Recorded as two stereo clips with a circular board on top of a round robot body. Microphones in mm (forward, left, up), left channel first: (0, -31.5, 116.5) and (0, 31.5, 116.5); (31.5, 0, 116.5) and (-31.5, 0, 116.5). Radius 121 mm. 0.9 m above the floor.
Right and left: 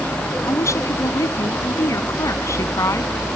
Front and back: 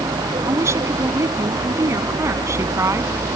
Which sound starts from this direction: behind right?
A woman speaking, at 0.5 s.